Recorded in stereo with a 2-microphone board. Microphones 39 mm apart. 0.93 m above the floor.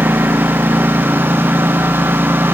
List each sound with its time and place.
0.0 s a lawn mower: 75° right (ahead or behind)